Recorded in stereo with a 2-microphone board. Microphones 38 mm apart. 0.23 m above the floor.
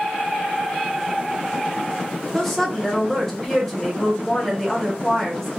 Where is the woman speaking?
5° left (ahead or behind), 0.9 m.